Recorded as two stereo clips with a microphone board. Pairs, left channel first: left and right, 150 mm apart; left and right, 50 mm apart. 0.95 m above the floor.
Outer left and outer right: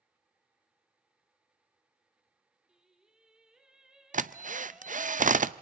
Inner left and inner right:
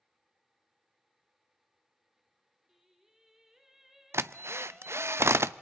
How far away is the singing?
About 2.5 m.